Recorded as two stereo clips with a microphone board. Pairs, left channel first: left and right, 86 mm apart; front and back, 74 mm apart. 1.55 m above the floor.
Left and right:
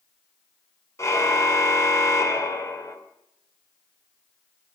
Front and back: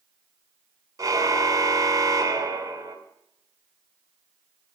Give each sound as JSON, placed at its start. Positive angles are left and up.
{"t": 1.0, "sound": "a car horn", "azimuth_deg": 145, "distance_m": 2.5}